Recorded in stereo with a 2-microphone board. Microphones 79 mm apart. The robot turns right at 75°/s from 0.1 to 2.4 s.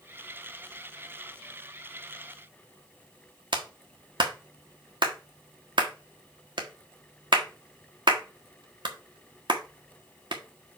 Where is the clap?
75° right (ahead or behind), 1.5 m.